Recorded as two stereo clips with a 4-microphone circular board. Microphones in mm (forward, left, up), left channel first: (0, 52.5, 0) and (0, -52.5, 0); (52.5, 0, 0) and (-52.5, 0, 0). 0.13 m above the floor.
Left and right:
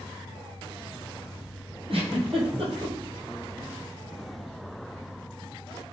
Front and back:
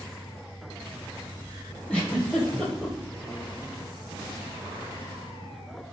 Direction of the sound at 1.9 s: 80° right.